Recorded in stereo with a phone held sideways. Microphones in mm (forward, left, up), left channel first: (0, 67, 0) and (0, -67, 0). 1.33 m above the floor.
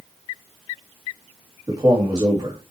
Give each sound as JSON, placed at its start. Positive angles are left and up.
{"t": 1.7, "sound": "a man speaking", "side_deg": -30, "distance_m": 2.5}